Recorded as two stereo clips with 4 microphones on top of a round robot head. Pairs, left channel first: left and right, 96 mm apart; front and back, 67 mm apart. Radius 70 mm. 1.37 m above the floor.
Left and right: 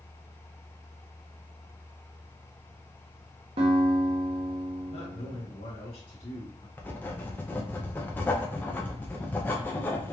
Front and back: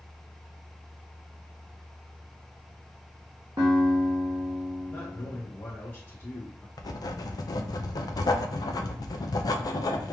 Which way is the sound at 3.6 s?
115° right.